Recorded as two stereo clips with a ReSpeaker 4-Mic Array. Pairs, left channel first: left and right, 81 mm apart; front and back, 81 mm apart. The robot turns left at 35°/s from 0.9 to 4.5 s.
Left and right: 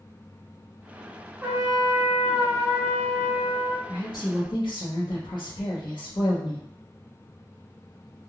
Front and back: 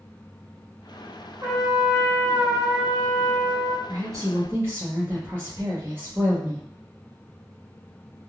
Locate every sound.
1.4 s a trumpet: 150° right, 1.3 m; by 3.8 s 130° left, 1.3 m
3.9 s a woman speaking: 135° left, 0.7 m; by 6.6 s 115° left, 0.7 m